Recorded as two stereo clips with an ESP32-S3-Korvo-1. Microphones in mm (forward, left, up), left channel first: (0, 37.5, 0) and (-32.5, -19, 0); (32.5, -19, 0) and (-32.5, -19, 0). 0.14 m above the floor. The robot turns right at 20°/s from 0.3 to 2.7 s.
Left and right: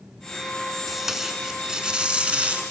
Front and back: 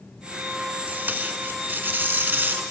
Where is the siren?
I don't hear a siren.